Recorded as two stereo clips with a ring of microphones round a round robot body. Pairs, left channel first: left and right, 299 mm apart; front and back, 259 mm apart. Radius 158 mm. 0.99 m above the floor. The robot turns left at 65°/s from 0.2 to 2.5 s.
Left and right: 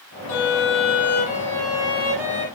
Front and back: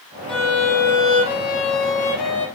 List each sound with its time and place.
0.3 s a violin: 90° left, 0.6 m; by 2.5 s 55° right, 0.6 m